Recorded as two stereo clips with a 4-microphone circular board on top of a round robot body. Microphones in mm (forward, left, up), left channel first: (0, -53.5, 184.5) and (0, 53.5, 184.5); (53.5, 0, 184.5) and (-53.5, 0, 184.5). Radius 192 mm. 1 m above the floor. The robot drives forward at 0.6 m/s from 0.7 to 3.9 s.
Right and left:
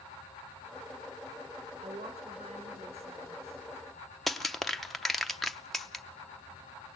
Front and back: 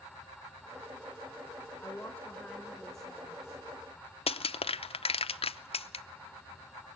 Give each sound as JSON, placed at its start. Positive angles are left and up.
{"t": 1.8, "sound": "a woman speaking", "azimuth_deg": 70, "distance_m": 1.8}
{"t": 4.3, "sound": "crushing", "azimuth_deg": 0, "distance_m": 0.7}